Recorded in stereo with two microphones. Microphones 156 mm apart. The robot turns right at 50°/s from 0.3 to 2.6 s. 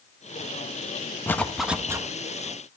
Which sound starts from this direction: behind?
A zipper, at 1.3 s.